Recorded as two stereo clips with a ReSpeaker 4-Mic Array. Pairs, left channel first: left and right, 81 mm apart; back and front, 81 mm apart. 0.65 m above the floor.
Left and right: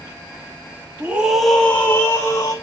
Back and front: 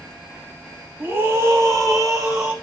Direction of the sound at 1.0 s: 45° right.